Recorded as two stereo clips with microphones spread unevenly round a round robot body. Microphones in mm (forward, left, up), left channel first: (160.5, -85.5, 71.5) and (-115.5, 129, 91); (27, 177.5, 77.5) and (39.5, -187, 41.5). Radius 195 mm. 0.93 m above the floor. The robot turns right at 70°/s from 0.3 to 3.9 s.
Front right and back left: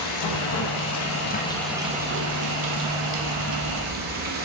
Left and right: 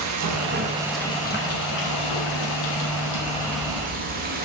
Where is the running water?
45° right, 1.1 m; by 4.5 s 155° right, 1.1 m.